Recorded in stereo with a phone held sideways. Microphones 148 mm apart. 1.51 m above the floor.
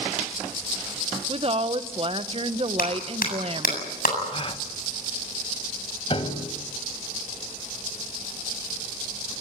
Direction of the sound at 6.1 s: 40° left (ahead or behind).